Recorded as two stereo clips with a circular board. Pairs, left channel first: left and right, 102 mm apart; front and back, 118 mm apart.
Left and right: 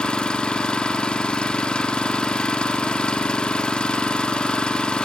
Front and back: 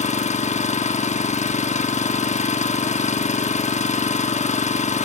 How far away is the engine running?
About 0.9 m.